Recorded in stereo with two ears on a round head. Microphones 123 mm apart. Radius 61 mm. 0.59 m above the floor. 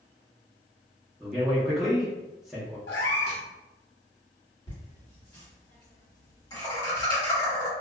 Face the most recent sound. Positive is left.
turn(degrees=30)  # may be behind; listen again after turning